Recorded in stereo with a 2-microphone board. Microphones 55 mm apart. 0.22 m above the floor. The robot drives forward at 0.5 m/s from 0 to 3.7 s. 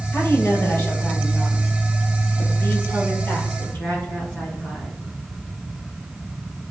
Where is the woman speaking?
55° left (ahead or behind), 4 m; by 5.0 s 40° left (ahead or behind), 5.5 m.